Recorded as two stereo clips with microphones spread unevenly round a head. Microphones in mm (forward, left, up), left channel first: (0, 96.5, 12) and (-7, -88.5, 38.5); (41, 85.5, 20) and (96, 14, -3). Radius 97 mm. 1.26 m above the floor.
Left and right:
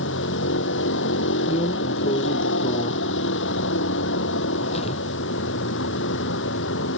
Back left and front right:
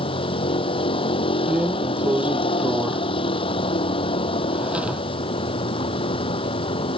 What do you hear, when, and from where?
0.0 s a vehicle: 110° left
1.5 s a drawer: 25° left